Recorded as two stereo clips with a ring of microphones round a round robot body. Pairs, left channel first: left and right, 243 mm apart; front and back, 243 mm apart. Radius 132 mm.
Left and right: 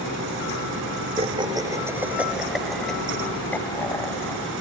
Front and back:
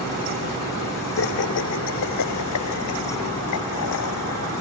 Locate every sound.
1.2 s laughter: 25° right; by 4.5 s 15° left